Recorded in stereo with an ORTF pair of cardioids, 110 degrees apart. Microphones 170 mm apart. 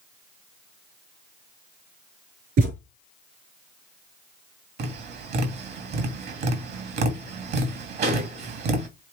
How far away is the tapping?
About 2.5 m.